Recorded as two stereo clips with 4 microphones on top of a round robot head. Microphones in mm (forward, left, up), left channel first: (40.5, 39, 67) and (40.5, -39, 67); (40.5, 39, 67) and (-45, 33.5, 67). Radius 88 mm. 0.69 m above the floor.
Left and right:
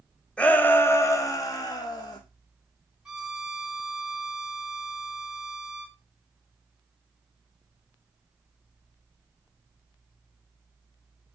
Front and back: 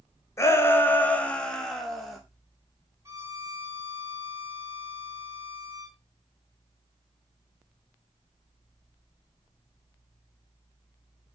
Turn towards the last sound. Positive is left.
turn(degrees=-165)